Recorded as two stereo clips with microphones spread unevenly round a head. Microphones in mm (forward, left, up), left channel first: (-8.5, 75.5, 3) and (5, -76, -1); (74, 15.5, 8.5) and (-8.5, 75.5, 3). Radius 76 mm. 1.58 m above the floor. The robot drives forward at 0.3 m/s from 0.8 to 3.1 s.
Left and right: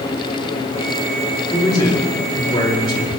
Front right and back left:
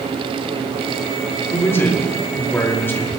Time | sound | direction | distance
1.5 | a man speaking | 30° left | 4.5 m